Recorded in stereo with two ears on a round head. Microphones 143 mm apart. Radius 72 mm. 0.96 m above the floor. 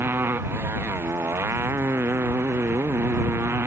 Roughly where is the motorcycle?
Centre.